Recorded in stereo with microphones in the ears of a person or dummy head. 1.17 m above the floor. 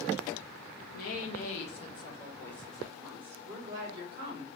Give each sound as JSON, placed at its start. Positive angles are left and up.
{"t": 0.9, "sound": "a woman speaking", "side_deg": 55, "distance_m": 1.4}